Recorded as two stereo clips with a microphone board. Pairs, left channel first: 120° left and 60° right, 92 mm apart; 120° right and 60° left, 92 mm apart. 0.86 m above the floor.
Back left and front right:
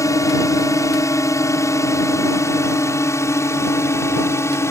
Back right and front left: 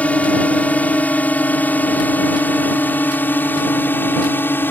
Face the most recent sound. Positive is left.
turn(degrees=175)